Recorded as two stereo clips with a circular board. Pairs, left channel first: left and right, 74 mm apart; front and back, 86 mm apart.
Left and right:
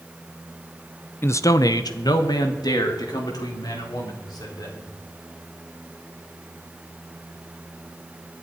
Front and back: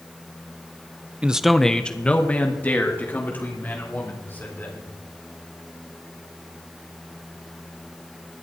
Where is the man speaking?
115° left, 0.7 m; by 4.9 s 65° left, 5.5 m.